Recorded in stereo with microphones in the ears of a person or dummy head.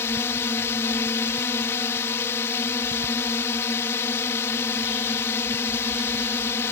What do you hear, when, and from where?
0.0 s a drone: 10° left (ahead or behind)